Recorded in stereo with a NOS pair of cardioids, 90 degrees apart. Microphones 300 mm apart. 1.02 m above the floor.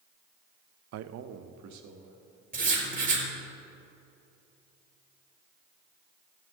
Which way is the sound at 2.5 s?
30° right.